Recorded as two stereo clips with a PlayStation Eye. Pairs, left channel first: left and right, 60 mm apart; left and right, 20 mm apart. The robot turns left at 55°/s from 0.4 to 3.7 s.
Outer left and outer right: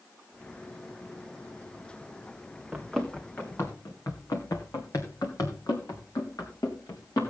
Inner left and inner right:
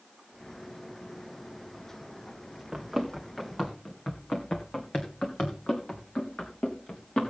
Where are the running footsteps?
20° right (ahead or behind), 2 m; by 7.3 s 85° left, 3.5 m.